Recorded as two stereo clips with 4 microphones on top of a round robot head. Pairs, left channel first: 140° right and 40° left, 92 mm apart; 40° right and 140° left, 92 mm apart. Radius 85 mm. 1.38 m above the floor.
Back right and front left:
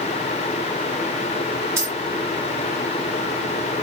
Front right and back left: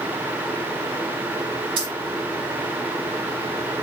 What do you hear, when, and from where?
1.8 s keys jangling: 105° left, 1.2 m